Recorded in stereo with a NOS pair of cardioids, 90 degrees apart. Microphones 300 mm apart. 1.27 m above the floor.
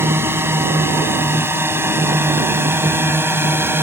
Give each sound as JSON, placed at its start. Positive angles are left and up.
{"t": 0.0, "sound": "a drone", "azimuth_deg": -5}